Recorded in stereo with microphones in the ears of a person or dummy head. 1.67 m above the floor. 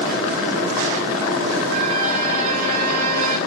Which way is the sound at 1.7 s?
45° right (ahead or behind).